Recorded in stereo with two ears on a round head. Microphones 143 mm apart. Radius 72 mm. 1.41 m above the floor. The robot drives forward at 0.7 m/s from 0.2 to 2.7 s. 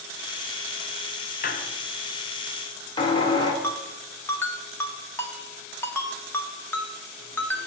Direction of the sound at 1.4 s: 55° left (ahead or behind).